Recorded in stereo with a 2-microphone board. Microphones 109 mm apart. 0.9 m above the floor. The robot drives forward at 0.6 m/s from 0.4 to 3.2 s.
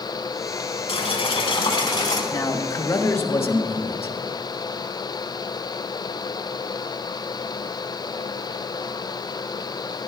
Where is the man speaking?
35° left (ahead or behind), 1.0 m; by 4.2 s 25° left (ahead or behind), 1.3 m.